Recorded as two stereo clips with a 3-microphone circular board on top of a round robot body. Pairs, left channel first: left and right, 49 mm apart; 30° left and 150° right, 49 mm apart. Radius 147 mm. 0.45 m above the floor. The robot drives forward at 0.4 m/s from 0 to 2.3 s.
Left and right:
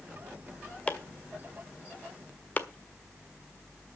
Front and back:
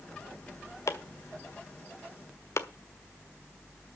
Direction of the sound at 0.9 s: 25° left.